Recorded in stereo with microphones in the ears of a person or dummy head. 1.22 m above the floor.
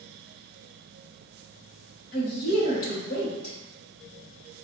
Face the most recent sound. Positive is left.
turn(degrees=55)  # may be behind; listen again after turning